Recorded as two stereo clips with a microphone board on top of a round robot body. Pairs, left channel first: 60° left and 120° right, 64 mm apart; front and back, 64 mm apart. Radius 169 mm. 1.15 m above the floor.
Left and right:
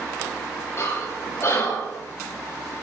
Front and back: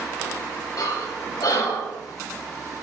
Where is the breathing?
15° left, 3 m.